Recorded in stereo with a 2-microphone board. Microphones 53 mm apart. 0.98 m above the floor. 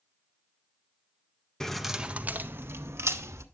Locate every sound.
1.6 s keys jangling: 10° left (ahead or behind), 0.5 m; by 3.5 s 65° right (ahead or behind), 1.1 m